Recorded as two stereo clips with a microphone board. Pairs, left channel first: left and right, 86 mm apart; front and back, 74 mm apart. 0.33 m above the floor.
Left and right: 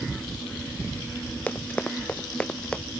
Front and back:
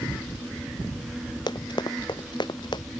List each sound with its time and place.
1.5 s running footsteps: 15° left; by 2.8 s 10° left